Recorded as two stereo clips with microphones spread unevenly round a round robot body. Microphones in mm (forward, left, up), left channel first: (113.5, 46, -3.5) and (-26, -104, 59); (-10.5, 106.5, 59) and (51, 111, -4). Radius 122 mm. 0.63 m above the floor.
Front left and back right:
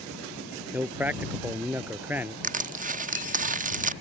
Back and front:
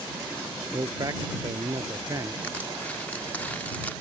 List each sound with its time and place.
0.7 s a man speaking: 50° right
2.4 s crushing: 70° right